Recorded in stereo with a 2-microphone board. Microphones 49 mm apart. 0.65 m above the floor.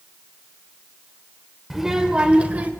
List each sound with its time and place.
1.7 s a child speaking: 5° right (ahead or behind), 1.8 m; by 2.7 s 35° right (ahead or behind), 2 m